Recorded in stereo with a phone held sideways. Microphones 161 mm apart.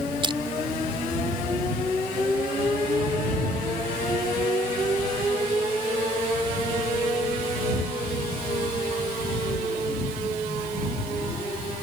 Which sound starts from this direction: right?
Crushing, at 0.2 s.